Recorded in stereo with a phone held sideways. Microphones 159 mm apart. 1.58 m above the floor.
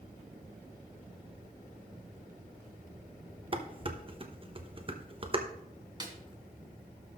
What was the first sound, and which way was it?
Dishes clattering, 35° right (ahead or behind).